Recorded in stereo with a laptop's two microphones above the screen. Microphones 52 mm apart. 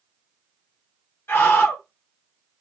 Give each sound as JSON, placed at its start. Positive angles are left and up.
{"t": 1.3, "sound": "a scream", "side_deg": 45, "distance_m": 0.7}